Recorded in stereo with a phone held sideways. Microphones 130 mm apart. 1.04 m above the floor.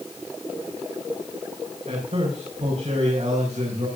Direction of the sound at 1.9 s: 60° right (ahead or behind).